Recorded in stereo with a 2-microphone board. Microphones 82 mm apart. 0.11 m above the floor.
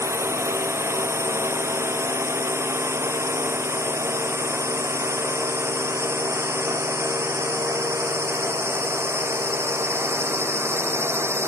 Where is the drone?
35° right (ahead or behind); by 11.5 s 30° right (ahead or behind).